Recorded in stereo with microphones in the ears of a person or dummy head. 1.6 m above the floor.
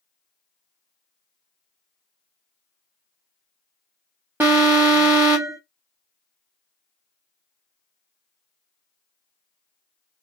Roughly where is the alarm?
Centre.